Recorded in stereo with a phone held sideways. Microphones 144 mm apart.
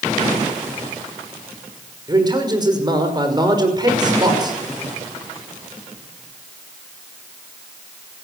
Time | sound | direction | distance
2.1 | a man speaking | 30° right (ahead or behind) | 5.5 m